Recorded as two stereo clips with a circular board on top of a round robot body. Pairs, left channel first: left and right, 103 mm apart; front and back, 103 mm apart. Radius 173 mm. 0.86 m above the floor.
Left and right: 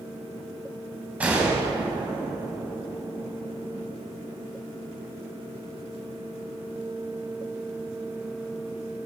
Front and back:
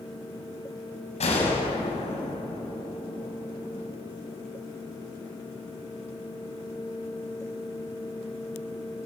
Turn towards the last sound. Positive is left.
turn(degrees=-10)